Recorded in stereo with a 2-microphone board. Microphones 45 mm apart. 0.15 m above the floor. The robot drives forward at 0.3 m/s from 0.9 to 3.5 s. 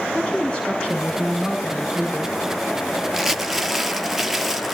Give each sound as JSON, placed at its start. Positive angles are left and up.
{"t": 0.1, "sound": "a woman speaking", "side_deg": 20, "distance_m": 5.5}
{"t": 3.1, "sound": "crumpling", "side_deg": -5, "distance_m": 0.7}